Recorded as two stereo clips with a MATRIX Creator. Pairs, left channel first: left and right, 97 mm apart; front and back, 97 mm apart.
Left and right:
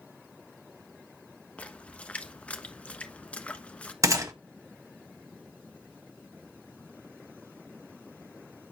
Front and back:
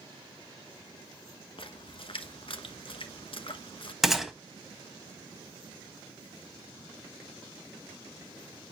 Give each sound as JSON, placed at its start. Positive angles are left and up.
{"t": 1.6, "sound": "a splash", "azimuth_deg": 15, "distance_m": 1.1}
{"t": 4.0, "sound": "a gunshot", "azimuth_deg": -95, "distance_m": 1.5}